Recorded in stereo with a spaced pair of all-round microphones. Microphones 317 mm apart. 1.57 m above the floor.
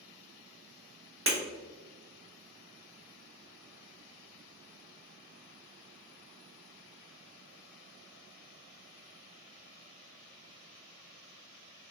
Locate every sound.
1.3 s breaking glass: 40° right (ahead or behind), 1.0 m